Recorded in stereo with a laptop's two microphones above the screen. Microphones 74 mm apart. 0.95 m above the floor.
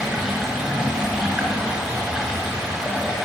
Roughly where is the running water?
Centre.